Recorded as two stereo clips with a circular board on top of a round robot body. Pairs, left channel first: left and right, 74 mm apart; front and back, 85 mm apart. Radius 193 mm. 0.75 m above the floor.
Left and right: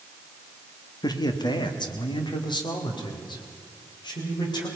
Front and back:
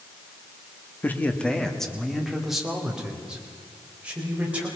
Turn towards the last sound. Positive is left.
turn(degrees=105)